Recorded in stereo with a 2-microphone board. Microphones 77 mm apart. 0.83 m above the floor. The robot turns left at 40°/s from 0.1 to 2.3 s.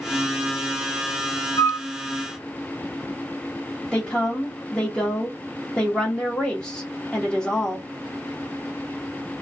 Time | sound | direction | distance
1.6 | a flute | 60° left (ahead or behind) | 0.7 m
3.9 | a woman speaking | 15° left (ahead or behind) | 0.9 m